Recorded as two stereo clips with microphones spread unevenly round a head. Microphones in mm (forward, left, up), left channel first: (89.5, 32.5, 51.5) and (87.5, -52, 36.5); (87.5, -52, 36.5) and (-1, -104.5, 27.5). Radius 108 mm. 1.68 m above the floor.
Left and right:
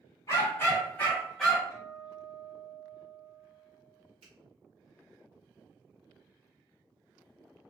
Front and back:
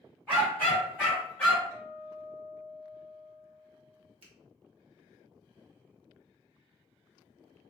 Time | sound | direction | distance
0.3 | a dog barking | 105° left | 1.8 m
1.7 | a guitar | 130° left | 1.4 m
4.2 | a finger snap | 130° right | 1.0 m